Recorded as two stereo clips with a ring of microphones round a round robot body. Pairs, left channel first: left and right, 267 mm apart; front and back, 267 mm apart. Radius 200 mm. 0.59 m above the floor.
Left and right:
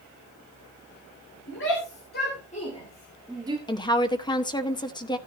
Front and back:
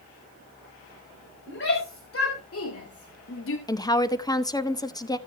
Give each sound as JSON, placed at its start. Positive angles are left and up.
{"t": 1.5, "sound": "a shout", "azimuth_deg": 40, "distance_m": 3.5}
{"t": 3.7, "sound": "a woman speaking", "azimuth_deg": 50, "distance_m": 1.1}